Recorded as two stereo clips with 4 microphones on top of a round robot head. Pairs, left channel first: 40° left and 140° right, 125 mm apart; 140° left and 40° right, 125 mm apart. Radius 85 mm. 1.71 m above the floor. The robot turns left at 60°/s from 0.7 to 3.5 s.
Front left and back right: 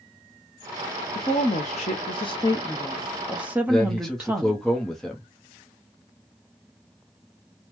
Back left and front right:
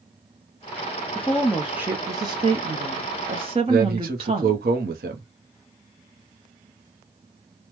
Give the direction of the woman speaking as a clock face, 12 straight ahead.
10 o'clock.